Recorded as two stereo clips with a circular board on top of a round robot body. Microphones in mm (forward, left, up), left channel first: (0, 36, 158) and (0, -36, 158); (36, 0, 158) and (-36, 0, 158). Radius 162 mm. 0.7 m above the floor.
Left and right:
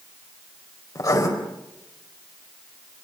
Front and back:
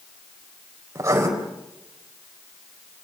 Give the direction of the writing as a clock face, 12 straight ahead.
8 o'clock.